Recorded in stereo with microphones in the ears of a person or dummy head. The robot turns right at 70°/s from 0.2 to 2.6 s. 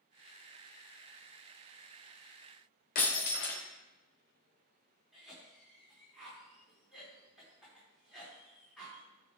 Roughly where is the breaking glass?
Left.